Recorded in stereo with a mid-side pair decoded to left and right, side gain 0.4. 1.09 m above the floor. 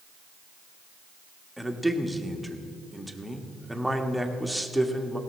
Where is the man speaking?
Straight ahead, 1.5 m.